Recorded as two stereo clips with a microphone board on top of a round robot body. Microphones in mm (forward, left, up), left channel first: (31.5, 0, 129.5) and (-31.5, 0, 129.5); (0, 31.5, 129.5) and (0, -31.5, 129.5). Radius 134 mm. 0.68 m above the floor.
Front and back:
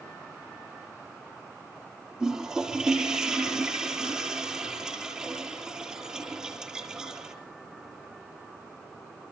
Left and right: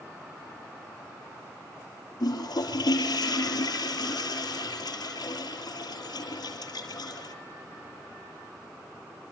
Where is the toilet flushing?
100° left, 6 m.